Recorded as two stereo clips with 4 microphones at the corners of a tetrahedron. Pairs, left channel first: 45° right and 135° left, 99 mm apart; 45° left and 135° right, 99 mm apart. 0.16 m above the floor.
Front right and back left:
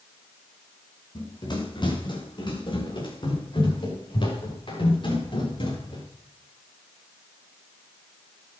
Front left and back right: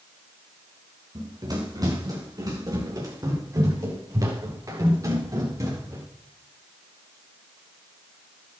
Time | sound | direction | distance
1.1 | running footsteps | 85° right | 5.5 m